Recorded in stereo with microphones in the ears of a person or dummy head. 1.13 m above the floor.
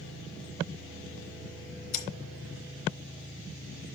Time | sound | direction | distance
1.9 | scissors | 50° left (ahead or behind) | 2.5 m